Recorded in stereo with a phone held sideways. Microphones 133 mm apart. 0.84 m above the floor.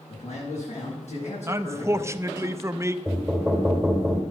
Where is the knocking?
Centre (ahead or behind), 3 m.